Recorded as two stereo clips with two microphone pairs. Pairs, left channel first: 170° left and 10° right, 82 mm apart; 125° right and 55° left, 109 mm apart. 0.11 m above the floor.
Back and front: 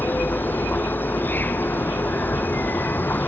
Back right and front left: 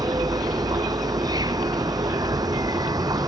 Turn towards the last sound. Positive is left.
turn(degrees=105)